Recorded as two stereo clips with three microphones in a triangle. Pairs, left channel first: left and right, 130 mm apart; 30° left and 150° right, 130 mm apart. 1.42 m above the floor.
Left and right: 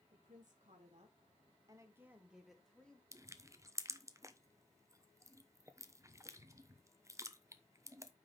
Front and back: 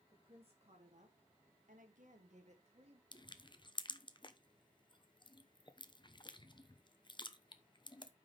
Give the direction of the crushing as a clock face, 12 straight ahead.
1 o'clock.